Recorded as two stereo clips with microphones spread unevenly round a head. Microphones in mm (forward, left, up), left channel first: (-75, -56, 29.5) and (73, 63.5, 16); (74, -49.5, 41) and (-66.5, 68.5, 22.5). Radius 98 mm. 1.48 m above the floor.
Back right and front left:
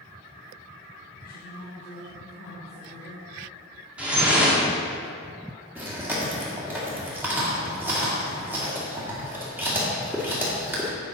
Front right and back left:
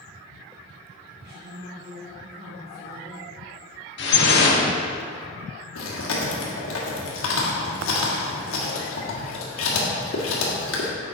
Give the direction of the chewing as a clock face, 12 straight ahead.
1 o'clock.